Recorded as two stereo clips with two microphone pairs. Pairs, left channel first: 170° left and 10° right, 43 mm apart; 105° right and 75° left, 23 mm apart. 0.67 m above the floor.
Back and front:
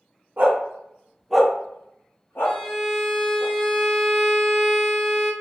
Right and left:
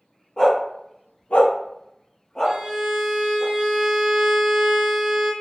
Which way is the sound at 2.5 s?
80° left.